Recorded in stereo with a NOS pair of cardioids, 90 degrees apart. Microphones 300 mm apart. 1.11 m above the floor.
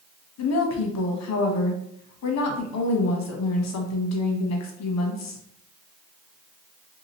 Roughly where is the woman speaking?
Ahead left.